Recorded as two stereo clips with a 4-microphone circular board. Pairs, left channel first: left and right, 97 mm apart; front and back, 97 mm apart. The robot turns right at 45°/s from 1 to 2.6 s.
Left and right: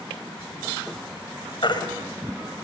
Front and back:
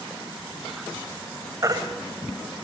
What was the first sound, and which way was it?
A baby crying, 125° left.